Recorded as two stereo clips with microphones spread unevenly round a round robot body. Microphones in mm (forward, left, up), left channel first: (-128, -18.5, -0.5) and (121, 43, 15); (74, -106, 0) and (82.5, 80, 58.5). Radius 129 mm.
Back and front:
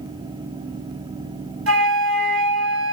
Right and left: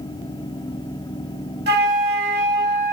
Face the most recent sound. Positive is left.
turn(degrees=55)